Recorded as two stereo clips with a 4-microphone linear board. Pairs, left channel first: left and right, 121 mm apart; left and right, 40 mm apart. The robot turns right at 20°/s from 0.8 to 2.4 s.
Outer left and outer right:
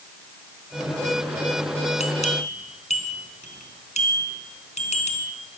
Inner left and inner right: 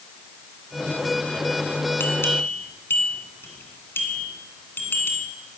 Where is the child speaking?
I don't hear a child speaking.